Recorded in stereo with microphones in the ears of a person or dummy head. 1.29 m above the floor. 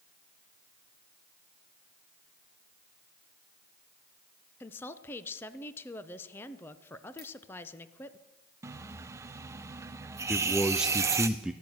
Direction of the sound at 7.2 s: 25° left (ahead or behind).